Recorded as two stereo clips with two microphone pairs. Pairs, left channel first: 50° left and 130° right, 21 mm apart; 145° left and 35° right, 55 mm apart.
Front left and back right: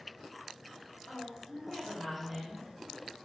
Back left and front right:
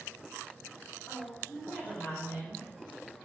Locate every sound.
1.1 s a woman speaking: 100° left, 1.7 m; by 2.7 s 110° left, 2.5 m